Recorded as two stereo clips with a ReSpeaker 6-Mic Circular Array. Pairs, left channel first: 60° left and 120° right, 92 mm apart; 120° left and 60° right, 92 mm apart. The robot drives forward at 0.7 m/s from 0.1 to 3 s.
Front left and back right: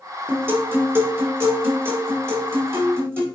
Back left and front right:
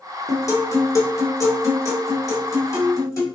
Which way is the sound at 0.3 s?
175° left.